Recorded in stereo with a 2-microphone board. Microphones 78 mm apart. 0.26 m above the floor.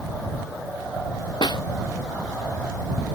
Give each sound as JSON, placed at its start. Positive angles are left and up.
{"t": 1.4, "sound": "a snare drum", "side_deg": 70}